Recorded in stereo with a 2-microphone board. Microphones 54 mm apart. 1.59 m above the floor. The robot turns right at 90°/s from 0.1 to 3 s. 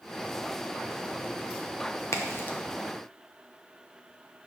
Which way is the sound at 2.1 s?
65° left (ahead or behind).